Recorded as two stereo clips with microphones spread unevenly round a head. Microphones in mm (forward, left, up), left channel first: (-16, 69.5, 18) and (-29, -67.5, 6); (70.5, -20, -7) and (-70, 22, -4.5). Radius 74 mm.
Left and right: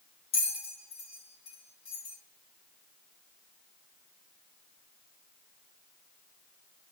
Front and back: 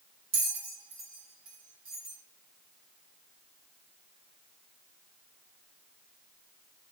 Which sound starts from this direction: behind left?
A bell, at 0.3 s.